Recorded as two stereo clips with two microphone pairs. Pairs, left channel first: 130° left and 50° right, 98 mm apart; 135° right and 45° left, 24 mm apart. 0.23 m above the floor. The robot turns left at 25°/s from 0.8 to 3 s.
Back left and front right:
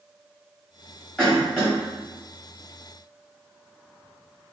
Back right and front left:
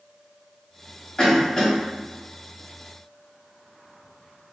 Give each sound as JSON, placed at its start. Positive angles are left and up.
{"t": 1.2, "sound": "a cough", "azimuth_deg": -170, "distance_m": 1.1}